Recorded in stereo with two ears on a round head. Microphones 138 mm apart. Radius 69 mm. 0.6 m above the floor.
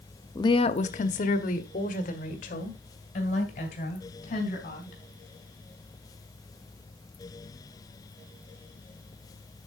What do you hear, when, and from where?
0.3 s a woman speaking: 20° left (ahead or behind), 0.6 m; by 5.0 s 50° left (ahead or behind), 4 m